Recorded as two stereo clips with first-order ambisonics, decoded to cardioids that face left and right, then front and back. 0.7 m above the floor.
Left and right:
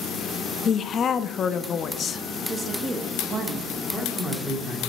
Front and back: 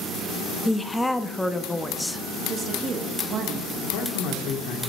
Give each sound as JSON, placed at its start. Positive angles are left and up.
{"t": 0.7, "sound": "a woman speaking", "azimuth_deg": 80, "distance_m": 0.6}
{"t": 2.5, "sound": "a woman speaking", "azimuth_deg": -145, "distance_m": 1.1}
{"t": 3.8, "sound": "a man speaking", "azimuth_deg": -10, "distance_m": 1.9}